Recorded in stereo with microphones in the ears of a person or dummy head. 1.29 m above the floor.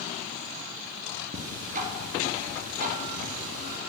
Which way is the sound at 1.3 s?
40° right (ahead or behind).